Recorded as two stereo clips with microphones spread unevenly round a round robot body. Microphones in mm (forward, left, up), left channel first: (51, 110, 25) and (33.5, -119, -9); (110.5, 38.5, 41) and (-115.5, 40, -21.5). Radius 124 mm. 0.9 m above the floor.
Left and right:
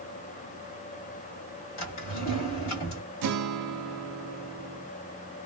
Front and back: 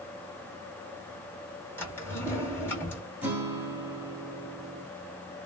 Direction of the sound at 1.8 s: 80° left.